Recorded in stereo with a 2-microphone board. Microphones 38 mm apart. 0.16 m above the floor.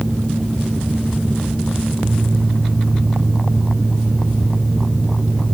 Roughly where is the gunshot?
No gunshot in this recording.